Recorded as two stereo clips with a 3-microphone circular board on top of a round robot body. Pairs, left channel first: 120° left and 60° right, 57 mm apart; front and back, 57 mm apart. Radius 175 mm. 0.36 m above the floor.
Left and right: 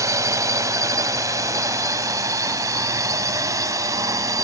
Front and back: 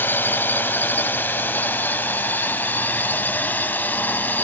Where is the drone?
50° right; by 4.5 s 55° right.